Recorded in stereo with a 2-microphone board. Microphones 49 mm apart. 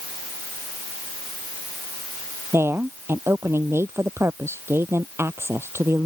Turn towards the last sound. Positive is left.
turn(degrees=-55)  # may be behind; listen again after turning